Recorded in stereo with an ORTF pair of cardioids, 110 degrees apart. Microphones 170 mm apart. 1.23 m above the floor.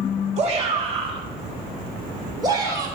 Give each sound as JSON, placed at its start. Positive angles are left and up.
{"t": 0.4, "sound": "a shout", "azimuth_deg": -40, "distance_m": 2.5}